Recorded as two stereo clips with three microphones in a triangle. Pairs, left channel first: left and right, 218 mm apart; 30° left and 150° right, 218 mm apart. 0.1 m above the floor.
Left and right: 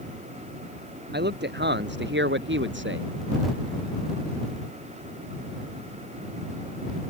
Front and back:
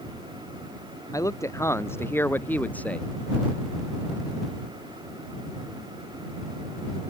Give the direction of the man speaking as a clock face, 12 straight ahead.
2 o'clock.